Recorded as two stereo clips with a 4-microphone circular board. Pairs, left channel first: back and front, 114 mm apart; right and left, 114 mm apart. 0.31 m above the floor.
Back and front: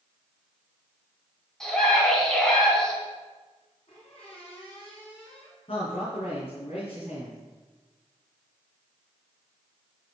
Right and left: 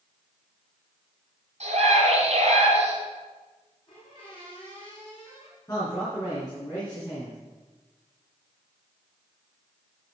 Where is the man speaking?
150° right, 4 m.